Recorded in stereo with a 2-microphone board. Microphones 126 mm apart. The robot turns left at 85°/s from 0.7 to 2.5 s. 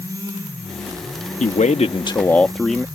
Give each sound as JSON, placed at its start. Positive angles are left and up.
{"t": 1.4, "sound": "a man speaking", "azimuth_deg": 95}